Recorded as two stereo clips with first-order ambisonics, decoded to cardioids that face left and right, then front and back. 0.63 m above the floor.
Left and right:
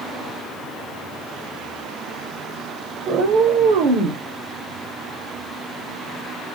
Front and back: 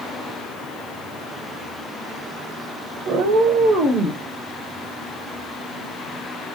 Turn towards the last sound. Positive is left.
turn(degrees=-90)